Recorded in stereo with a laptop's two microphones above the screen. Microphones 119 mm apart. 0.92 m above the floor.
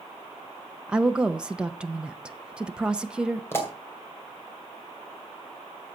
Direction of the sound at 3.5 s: 20° left (ahead or behind).